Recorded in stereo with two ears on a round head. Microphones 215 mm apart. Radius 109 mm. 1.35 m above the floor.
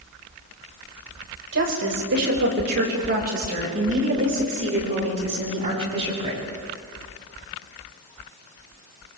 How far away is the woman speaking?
About 6 m.